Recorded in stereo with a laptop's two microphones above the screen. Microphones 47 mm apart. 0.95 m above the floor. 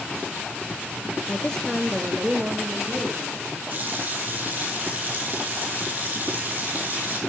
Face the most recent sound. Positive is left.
turn(degrees=-40)  # may be behind; listen again after turning